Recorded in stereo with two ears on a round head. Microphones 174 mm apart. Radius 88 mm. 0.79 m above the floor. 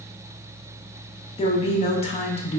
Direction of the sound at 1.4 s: 30° left (ahead or behind).